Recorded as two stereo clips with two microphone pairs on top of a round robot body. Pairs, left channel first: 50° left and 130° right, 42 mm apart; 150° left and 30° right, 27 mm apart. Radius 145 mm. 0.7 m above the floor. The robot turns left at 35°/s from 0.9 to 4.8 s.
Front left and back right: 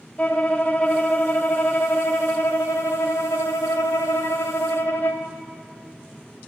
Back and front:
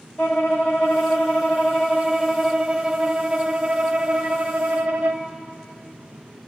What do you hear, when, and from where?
0.2 s a violin: 140° left, 0.5 m; by 5.3 s 5° left, 0.5 m